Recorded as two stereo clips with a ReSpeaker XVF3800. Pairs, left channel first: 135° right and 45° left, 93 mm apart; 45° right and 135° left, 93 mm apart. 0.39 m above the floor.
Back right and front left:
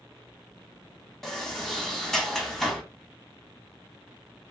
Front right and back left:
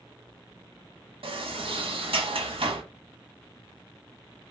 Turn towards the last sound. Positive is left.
turn(degrees=140)